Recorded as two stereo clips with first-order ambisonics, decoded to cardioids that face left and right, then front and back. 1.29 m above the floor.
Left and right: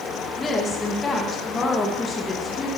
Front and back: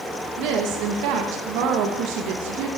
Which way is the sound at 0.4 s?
160° left.